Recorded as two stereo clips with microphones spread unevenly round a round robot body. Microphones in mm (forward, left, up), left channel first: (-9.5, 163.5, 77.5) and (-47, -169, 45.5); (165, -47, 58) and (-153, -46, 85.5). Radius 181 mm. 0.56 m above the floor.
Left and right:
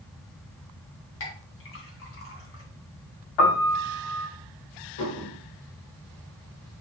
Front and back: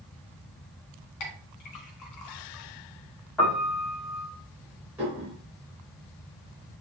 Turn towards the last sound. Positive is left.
turn(degrees=95)